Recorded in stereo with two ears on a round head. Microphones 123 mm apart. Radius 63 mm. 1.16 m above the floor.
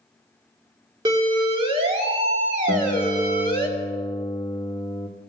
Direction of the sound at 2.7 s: 35° left (ahead or behind).